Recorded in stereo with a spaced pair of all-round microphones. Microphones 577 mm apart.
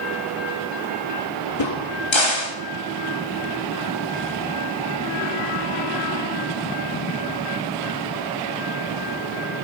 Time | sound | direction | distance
1.6 | a crack | 50° left (ahead or behind) | 2.0 m